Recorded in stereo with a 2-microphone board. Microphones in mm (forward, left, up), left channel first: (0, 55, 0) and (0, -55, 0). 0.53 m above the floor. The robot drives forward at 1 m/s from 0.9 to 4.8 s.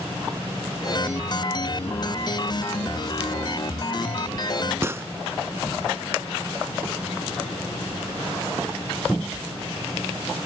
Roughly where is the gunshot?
Right.